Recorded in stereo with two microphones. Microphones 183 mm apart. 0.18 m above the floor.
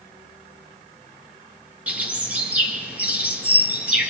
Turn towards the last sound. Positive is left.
turn(degrees=-10)  # may be behind; listen again after turning